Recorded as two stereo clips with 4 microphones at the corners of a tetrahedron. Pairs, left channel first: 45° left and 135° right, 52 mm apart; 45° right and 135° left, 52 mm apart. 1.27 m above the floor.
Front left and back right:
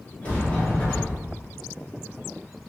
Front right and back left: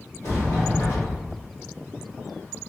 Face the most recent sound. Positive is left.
turn(degrees=-20)